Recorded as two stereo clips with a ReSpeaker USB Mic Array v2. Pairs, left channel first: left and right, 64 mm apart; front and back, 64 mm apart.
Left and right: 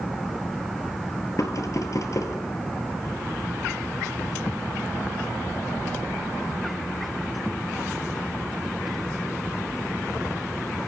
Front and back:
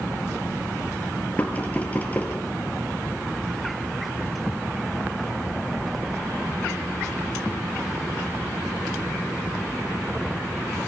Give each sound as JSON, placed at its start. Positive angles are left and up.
{"t": 1.4, "sound": "knocking", "azimuth_deg": 65, "distance_m": 2.5}